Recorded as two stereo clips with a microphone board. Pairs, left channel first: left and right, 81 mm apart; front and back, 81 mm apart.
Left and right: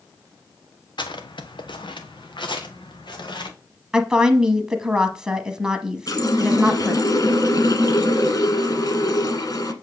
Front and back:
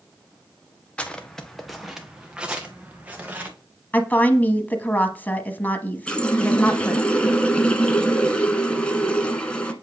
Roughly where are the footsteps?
Left.